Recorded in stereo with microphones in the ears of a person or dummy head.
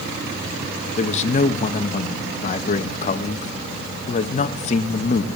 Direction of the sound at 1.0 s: 40° left (ahead or behind).